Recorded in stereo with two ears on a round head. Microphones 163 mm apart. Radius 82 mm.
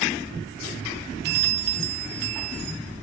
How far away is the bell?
About 0.8 m.